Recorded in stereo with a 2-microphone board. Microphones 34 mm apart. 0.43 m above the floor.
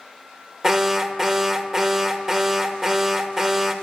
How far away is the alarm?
About 1.3 m.